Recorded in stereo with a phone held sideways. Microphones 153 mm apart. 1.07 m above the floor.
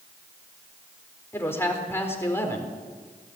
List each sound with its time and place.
1.3 s a man speaking: 15° left (ahead or behind), 4 m